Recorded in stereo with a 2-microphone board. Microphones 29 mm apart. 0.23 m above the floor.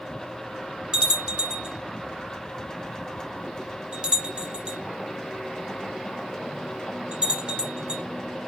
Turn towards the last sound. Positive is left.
turn(degrees=-35)  # may be behind; listen again after turning